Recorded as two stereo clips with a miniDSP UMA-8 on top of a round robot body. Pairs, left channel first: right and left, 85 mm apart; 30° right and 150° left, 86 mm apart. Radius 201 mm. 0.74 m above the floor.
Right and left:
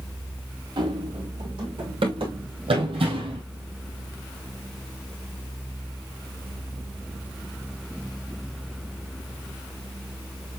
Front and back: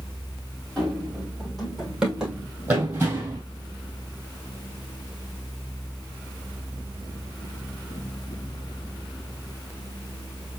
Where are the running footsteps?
55° left, 2.5 m; by 3.4 s 90° left, 1.7 m.